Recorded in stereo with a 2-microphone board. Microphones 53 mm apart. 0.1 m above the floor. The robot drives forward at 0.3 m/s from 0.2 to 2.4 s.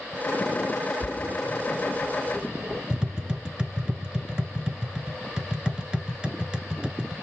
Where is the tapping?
15° right (ahead or behind), 0.7 m.